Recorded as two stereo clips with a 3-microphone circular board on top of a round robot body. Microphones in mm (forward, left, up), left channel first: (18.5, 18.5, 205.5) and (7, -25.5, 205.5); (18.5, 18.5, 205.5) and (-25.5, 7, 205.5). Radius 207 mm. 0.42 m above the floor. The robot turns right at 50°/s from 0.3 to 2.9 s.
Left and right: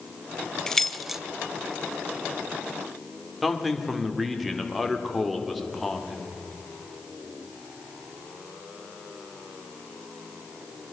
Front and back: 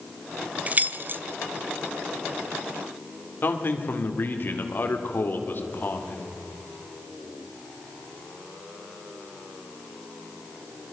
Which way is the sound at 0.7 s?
150° left.